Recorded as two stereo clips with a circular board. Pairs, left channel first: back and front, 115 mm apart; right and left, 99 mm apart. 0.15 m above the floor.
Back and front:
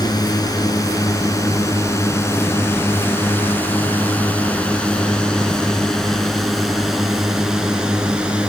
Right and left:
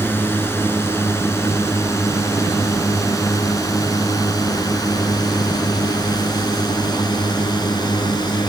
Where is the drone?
145° right; by 8.5 s 75° right.